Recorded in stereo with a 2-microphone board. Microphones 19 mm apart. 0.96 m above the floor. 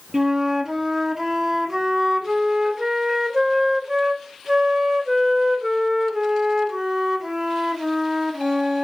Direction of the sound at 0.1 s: 20° right (ahead or behind).